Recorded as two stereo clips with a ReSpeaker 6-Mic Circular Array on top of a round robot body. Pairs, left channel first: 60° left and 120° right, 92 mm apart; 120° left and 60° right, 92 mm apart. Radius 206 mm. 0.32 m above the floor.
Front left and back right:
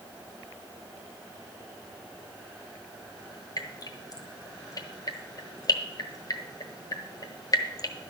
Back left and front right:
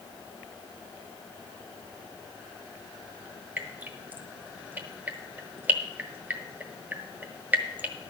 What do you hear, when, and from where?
3.6 s dripping: 10° left, 1.6 m